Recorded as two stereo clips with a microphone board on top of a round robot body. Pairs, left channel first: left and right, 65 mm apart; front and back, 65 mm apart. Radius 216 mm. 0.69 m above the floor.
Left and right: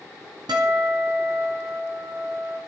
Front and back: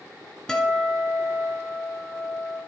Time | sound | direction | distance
0.5 | a guitar | 80° right | 1.7 m